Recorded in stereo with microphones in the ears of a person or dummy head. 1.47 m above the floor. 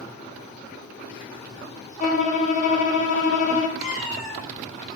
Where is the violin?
45° left (ahead or behind), 0.8 m.